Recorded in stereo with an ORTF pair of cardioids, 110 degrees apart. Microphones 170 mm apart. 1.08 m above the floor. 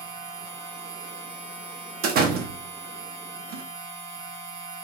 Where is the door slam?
70° right, 1.0 m.